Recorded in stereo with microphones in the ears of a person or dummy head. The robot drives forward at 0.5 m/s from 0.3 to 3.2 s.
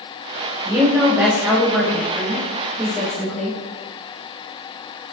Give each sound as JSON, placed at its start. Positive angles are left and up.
{"t": 0.7, "sound": "a woman speaking", "side_deg": -20, "distance_m": 0.6}